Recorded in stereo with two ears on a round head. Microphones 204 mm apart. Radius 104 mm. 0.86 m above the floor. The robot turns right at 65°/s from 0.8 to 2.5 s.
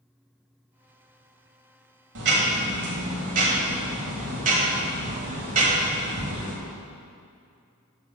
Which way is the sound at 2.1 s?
55° right (ahead or behind).